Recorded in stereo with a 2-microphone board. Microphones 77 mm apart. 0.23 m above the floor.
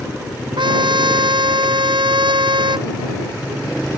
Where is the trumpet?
85° right.